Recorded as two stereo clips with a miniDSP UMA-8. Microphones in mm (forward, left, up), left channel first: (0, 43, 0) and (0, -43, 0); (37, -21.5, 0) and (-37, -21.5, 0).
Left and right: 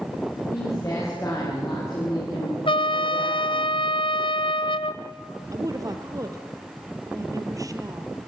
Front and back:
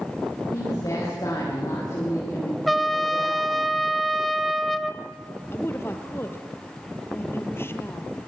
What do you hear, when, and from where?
0.5 s a woman speaking: 35° left, 7 m
2.7 s a trumpet: 90° left, 0.8 m
5.5 s a woman speaking: 50° right, 2 m